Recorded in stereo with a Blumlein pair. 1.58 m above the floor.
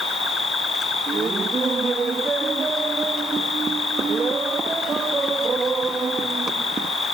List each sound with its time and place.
0.0 s an insect: 20° left
1.1 s laughter: 15° right